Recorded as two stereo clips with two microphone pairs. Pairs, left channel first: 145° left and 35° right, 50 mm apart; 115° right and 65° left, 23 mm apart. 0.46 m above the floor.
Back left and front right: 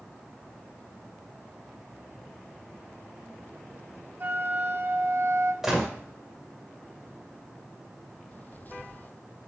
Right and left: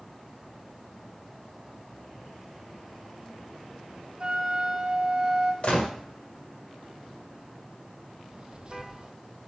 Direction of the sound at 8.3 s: 100° left.